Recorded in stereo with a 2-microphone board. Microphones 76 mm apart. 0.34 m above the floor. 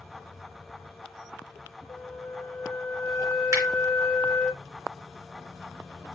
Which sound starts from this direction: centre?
A flute, at 1.9 s.